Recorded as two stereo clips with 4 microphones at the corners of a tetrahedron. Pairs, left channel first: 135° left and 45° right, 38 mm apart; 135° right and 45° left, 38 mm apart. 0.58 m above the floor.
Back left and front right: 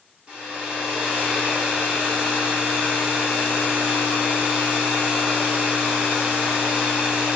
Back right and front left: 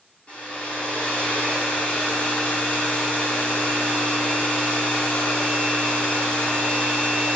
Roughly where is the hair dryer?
Right.